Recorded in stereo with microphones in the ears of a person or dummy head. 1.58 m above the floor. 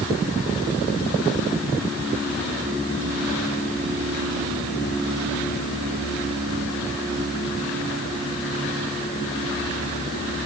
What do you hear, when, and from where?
Only background noise.